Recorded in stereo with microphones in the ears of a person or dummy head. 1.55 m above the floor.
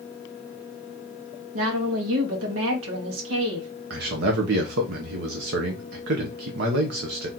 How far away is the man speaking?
About 0.9 m.